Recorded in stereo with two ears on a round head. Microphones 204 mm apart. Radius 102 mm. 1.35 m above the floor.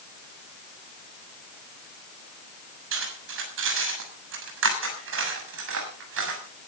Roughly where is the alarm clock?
No alarm clock in this recording.